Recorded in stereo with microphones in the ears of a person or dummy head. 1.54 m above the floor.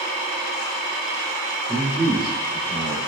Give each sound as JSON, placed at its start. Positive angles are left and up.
{"t": 1.7, "sound": "a man speaking", "side_deg": -5, "distance_m": 0.7}